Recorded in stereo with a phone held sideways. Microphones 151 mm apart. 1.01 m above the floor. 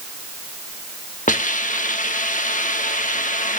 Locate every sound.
1.3 s a hiss: 60° left (ahead or behind), 1.3 m